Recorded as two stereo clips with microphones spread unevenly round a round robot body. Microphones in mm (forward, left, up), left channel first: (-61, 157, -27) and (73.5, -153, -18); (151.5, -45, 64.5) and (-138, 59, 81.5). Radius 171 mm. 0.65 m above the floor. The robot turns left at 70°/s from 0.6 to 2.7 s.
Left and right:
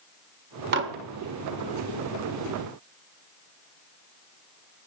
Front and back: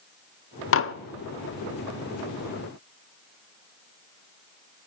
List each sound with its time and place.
0.7 s dishes clattering: 20° right, 0.6 m; by 0.9 s 35° right, 0.6 m